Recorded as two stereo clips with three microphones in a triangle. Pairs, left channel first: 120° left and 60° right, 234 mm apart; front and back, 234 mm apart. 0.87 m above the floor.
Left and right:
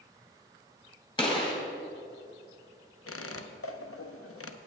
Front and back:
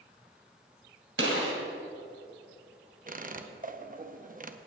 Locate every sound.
1.2 s a gunshot: 170° right, 2.5 m
3.1 s a squeak: 125° left, 0.6 m